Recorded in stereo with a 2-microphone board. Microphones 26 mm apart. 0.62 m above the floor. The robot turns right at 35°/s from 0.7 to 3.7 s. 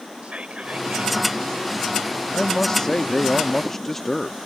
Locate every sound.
0.2 s whispering: 70° right (ahead or behind); by 1.4 s 55° right (ahead or behind)
2.3 s a man speaking: 100° left; by 4.4 s 145° left